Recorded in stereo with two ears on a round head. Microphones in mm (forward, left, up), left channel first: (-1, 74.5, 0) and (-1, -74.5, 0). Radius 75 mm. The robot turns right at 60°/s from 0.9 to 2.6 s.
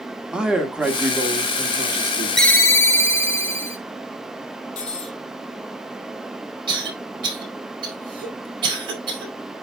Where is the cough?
30° right (ahead or behind), 4.5 m.